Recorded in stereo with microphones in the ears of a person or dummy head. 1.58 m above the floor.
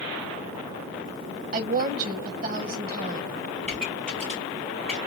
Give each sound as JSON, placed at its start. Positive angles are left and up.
{"t": 1.5, "sound": "a woman speaking", "side_deg": -50, "distance_m": 1.2}
{"t": 3.6, "sound": "a pop", "side_deg": 5, "distance_m": 3.0}